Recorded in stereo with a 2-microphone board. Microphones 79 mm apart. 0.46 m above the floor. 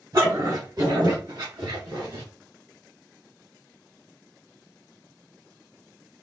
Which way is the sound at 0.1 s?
45° right (ahead or behind).